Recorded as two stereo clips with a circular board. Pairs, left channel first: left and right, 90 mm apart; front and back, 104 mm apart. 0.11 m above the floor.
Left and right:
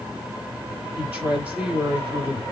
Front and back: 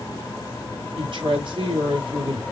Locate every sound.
1.0 s a woman speaking: 160° right, 2.5 m